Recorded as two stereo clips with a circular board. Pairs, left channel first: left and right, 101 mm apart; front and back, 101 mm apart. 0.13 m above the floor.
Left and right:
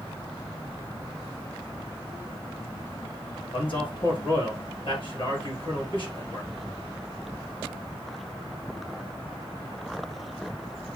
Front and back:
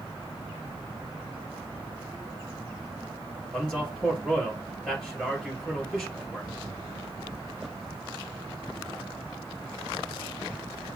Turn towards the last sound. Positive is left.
turn(degrees=85)